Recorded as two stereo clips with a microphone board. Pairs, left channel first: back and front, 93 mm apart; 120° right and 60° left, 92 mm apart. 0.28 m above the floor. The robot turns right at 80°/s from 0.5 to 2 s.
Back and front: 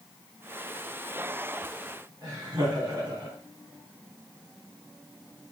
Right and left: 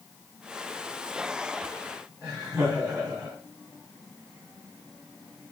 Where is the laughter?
10° right, 2.5 m.